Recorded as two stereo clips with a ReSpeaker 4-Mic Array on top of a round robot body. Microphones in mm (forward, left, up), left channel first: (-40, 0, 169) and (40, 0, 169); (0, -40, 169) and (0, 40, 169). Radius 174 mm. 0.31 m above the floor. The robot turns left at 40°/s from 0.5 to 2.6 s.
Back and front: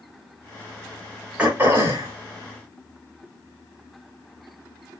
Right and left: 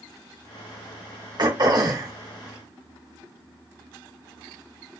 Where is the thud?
No thud in this recording.